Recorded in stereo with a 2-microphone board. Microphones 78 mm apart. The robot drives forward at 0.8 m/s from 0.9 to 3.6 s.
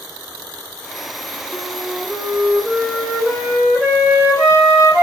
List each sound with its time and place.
1.5 s a flute: 15° right (ahead or behind), 5 m; by 5.0 s 10° right (ahead or behind), 6.5 m